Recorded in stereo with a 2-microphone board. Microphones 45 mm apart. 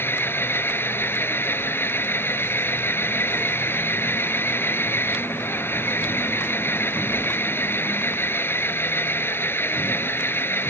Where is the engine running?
55° left (ahead or behind).